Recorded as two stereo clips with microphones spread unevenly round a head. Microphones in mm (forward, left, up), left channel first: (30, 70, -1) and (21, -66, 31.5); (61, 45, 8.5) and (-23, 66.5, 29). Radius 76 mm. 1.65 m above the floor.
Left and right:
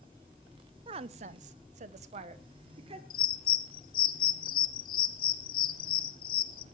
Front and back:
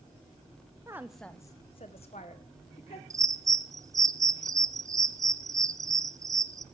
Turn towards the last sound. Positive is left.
turn(degrees=115)